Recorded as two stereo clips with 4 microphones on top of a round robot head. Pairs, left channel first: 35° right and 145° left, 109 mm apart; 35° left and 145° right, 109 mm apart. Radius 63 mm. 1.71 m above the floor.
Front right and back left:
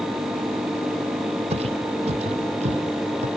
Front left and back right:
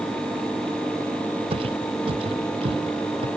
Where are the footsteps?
175° left.